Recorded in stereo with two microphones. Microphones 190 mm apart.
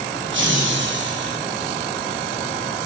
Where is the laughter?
70° right (ahead or behind), 4 m; by 1.4 s 65° right (ahead or behind), 4 m.